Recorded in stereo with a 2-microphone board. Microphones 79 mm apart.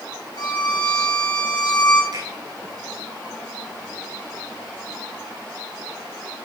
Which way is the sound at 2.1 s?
80° right.